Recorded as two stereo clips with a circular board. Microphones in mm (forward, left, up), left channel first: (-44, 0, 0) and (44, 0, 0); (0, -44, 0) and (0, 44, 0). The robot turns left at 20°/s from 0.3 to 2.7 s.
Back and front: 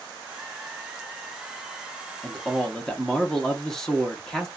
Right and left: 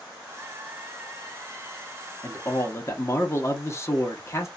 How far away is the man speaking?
About 0.7 m.